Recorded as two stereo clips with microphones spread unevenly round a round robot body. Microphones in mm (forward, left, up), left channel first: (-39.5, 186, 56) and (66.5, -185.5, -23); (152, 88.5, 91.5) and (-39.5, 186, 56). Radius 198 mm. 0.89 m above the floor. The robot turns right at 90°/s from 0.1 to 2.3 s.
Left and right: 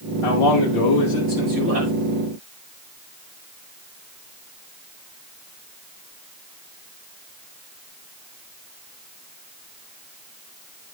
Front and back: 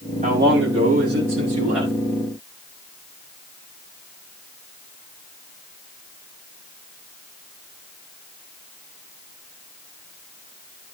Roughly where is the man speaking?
Left.